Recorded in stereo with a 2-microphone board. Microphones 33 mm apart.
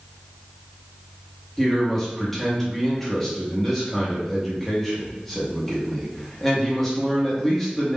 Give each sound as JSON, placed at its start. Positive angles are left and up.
{"t": 1.6, "sound": "a man speaking", "side_deg": 5, "distance_m": 0.8}